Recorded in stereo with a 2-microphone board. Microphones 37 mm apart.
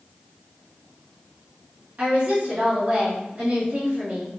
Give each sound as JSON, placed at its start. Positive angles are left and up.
{"t": 2.0, "sound": "a woman speaking", "side_deg": -45, "distance_m": 1.9}